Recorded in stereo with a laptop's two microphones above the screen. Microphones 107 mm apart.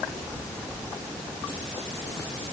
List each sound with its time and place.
Only background noise.